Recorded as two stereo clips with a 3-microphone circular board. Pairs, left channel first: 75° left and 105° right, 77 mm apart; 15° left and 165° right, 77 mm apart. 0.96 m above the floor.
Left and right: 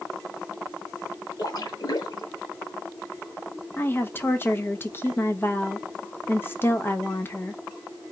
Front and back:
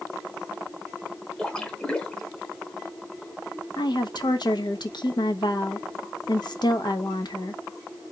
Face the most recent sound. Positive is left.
turn(degrees=15)